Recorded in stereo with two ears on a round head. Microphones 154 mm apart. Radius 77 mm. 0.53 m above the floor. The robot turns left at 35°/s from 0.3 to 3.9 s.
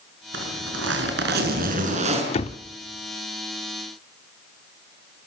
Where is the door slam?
35° left (ahead or behind), 0.8 m; by 2.6 s 30° left (ahead or behind), 0.8 m.